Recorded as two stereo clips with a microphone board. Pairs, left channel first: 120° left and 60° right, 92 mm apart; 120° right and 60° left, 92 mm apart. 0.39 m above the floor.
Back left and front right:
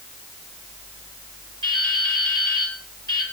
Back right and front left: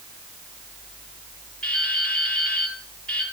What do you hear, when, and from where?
1.6 s dripping: 160° left, 7.5 m